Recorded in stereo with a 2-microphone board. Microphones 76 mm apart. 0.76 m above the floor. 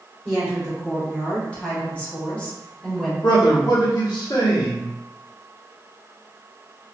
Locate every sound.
0.2 s a woman speaking: 10° left (ahead or behind), 1.5 m
3.2 s a man speaking: 60° left (ahead or behind), 1.1 m